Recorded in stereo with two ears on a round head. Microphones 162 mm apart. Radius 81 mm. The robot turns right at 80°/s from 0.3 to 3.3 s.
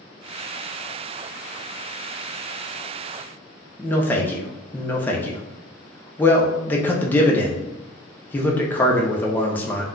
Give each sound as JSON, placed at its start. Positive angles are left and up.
{"t": 3.8, "sound": "a man speaking", "side_deg": 10, "distance_m": 0.5}